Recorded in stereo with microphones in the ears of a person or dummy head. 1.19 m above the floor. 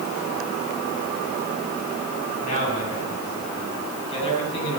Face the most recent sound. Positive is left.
turn(degrees=30)  # may be behind; listen again after turning